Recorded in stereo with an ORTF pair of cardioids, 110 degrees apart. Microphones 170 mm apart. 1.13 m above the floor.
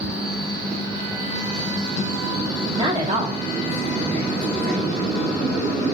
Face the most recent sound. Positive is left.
turn(degrees=-65)